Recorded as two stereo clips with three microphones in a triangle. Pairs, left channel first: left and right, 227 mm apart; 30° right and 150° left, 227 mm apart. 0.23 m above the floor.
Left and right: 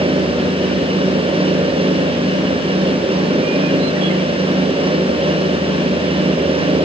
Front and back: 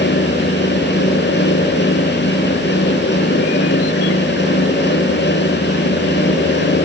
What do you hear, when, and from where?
Only background noise.